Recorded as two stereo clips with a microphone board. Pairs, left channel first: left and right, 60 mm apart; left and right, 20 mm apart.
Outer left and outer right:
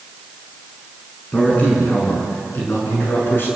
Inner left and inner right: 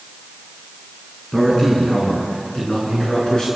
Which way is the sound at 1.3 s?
25° left (ahead or behind).